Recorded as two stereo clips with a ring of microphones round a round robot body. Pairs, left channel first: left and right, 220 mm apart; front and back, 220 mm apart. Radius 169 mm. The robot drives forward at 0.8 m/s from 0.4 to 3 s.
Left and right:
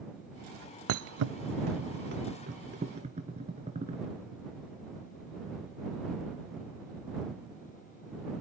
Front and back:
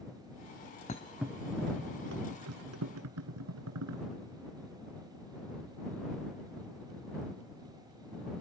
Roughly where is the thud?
Ahead right.